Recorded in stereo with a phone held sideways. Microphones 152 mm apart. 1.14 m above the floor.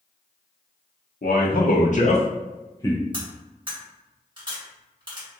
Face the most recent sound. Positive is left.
turn(degrees=-30)  # may be behind; listen again after turning